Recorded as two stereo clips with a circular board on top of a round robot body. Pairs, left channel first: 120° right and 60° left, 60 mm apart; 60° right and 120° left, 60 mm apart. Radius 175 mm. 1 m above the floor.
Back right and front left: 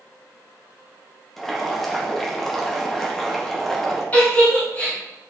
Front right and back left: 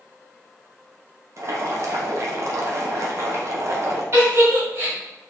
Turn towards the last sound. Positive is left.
turn(degrees=170)